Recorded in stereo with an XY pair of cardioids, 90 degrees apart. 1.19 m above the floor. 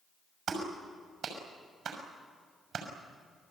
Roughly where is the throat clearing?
I don't hear throat clearing.